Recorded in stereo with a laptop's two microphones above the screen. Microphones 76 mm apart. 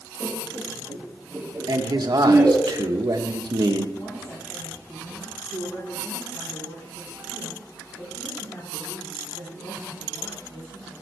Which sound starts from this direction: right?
A man speaking, at 1.7 s.